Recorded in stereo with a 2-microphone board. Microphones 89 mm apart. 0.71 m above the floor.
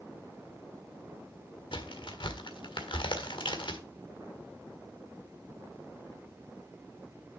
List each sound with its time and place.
1.7 s a crack: 65° left (ahead or behind), 1.6 m